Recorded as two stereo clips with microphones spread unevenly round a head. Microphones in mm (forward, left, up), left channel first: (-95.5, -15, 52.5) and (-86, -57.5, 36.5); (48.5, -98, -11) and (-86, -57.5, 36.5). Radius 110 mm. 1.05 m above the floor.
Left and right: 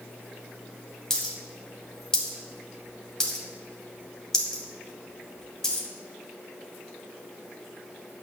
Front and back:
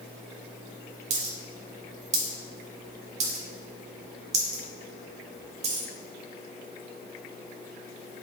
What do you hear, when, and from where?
1.1 s a dropped coin: 160° left, 1.5 m